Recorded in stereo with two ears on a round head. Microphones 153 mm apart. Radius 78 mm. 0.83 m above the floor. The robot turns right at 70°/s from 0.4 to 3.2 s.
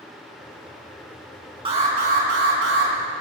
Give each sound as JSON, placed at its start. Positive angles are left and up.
{"t": 1.6, "sound": "an alarm", "azimuth_deg": -150, "distance_m": 6.0}